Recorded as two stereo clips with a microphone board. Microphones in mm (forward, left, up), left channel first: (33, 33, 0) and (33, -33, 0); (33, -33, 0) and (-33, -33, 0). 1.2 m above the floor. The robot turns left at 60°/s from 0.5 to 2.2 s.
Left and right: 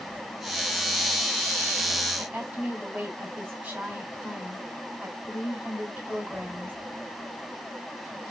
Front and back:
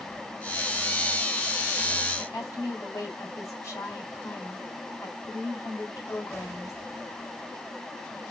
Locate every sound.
2.2 s a woman speaking: 30° right, 3 m